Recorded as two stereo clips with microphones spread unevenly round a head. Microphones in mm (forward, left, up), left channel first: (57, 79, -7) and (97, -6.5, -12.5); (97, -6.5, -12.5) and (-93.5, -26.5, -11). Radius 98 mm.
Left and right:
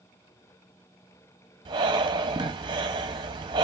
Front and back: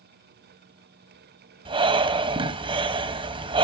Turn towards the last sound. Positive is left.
turn(degrees=-115)